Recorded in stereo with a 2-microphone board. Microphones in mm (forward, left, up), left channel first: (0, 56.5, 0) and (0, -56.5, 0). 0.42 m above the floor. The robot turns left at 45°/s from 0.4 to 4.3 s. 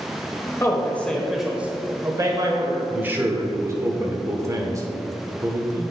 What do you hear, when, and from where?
0.6 s a man speaking: 30° left, 1.3 m; by 2.8 s 65° right, 1.3 m
2.9 s a man speaking: 30° right, 1.0 m; by 5.8 s 95° right, 1.0 m